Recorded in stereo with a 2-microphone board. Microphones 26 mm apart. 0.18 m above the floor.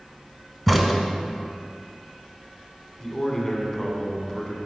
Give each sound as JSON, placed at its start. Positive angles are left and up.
{"t": 0.7, "sound": "a crack", "side_deg": -10, "distance_m": 1.0}
{"t": 3.0, "sound": "a man speaking", "side_deg": 10, "distance_m": 1.4}